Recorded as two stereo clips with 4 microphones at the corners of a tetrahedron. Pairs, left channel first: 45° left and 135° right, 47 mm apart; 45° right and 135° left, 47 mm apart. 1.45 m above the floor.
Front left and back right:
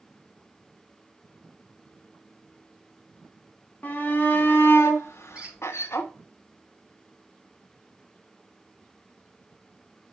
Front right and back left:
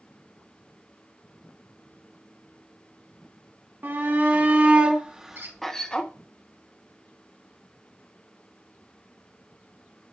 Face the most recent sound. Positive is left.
turn(degrees=160)